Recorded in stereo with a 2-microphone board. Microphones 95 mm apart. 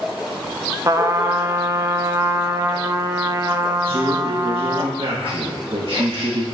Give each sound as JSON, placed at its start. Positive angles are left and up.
{"t": 0.8, "sound": "a trumpet", "side_deg": -30, "distance_m": 0.6}
{"t": 3.8, "sound": "a man speaking", "side_deg": -70, "distance_m": 1.5}